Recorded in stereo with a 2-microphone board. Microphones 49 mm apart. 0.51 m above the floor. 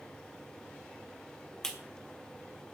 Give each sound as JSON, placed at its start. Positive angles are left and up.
{"t": 1.6, "sound": "a clap", "side_deg": 10, "distance_m": 1.4}